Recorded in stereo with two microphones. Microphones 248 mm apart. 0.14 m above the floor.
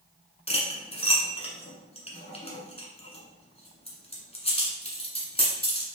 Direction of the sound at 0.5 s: 25° left (ahead or behind).